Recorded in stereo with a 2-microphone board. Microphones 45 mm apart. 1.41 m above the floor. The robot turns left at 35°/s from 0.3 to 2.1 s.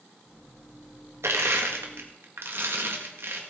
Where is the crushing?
85° right, 1.8 m; by 3.4 s 65° right (ahead or behind), 1.8 m.